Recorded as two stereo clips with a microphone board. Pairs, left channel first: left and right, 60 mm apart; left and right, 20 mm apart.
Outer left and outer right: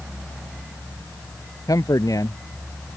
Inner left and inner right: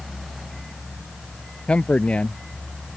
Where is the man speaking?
75° left (ahead or behind).